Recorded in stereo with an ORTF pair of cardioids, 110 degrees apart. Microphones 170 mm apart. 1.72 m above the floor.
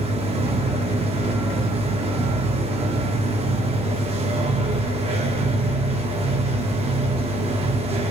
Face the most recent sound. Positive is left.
turn(degrees=-40)